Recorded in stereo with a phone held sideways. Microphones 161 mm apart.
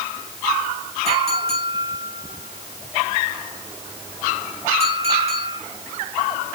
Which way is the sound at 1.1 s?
40° right (ahead or behind).